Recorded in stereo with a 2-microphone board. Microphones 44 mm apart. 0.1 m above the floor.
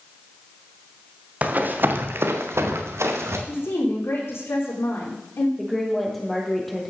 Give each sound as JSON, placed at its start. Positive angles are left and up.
{"t": 1.4, "sound": "running footsteps", "side_deg": -35, "distance_m": 2.5}
{"t": 3.5, "sound": "a woman speaking", "side_deg": 75, "distance_m": 6.5}
{"t": 5.6, "sound": "a woman speaking", "side_deg": 5, "distance_m": 3.0}